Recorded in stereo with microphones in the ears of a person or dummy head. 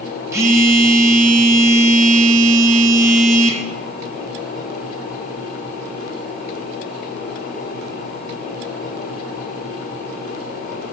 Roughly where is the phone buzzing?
Centre.